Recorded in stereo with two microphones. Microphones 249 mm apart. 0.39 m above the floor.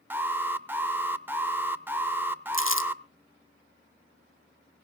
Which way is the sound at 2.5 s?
60° left (ahead or behind).